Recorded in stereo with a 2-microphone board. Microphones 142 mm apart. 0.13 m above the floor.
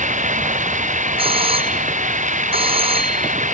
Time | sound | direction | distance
0.0 | running water | 65° right (ahead or behind) | ?
1.2 | a doorbell | 40° right (ahead or behind) | ?